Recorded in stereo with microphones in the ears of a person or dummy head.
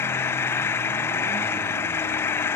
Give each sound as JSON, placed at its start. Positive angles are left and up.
{"t": 0.0, "sound": "an engine running", "side_deg": 15}